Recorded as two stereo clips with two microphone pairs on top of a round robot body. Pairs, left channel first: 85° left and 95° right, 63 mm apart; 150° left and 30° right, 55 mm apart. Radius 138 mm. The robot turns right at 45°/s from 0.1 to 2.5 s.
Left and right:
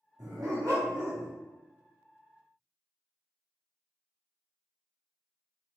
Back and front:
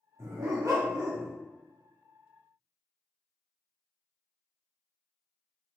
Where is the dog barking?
70° right, 1.6 m; by 1.3 s 20° right, 1.6 m.